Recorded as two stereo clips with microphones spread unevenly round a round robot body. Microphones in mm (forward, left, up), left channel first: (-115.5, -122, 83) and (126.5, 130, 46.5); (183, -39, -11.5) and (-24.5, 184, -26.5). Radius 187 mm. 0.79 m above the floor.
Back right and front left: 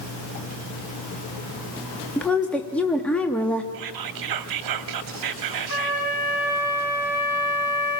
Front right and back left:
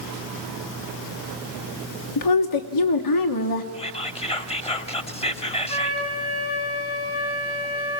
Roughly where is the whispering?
Ahead left.